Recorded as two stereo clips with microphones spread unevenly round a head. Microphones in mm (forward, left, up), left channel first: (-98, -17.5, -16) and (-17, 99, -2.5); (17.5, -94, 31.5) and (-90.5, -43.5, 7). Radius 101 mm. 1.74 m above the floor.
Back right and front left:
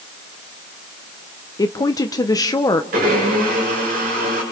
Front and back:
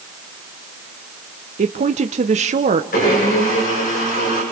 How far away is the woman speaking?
About 0.9 m.